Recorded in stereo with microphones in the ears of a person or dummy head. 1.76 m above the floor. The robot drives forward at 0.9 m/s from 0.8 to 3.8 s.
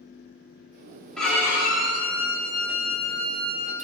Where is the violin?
5° left (ahead or behind), 1.3 m; by 3.7 s centre (ahead or behind), 3.5 m.